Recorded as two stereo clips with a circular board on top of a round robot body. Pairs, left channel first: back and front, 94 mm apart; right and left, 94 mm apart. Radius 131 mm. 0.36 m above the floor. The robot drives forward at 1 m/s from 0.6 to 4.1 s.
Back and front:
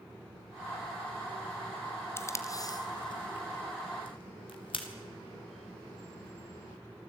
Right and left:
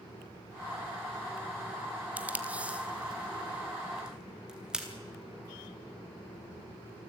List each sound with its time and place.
2.2 s tape being pulled: 145° left, 1.5 m; by 4.9 s 170° left, 3 m